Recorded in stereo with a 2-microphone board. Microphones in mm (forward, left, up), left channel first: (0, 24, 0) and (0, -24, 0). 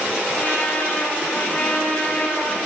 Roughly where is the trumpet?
Left.